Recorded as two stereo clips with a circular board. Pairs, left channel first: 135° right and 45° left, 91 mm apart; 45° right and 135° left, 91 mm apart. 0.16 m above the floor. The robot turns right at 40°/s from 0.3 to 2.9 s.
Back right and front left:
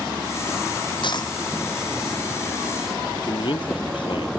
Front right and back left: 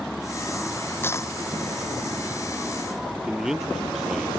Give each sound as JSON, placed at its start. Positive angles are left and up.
{"t": 1.0, "sound": "a dropped coin", "azimuth_deg": -110}
{"t": 3.2, "sound": "a man speaking", "azimuth_deg": -140}